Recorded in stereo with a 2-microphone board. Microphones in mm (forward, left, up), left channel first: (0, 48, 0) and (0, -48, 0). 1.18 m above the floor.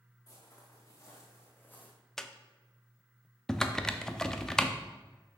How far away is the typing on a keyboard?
About 0.6 m.